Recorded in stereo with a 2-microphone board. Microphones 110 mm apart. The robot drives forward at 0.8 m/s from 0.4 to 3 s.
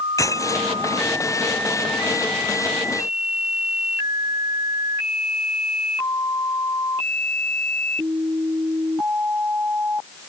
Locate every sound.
0.2 s breaking glass: 30° left (ahead or behind)